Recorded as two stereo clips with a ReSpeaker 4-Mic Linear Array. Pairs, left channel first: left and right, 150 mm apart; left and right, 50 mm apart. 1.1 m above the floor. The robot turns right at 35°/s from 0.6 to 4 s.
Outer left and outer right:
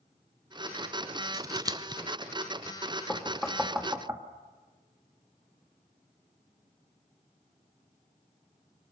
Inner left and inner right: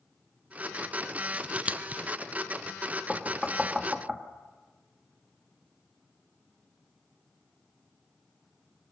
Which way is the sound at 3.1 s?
10° left (ahead or behind).